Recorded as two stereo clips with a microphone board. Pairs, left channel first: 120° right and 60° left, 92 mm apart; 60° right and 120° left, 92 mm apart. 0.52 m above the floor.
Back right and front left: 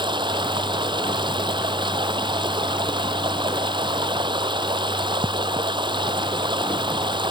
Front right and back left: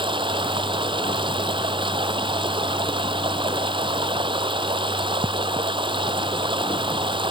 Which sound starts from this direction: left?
Running water, at 0.0 s.